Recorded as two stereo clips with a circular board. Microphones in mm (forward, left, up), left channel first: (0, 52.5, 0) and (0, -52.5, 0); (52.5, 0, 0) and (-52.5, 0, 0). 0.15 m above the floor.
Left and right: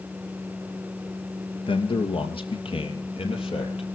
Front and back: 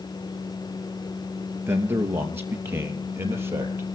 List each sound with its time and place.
1.7 s a man speaking: 115° left, 2.5 m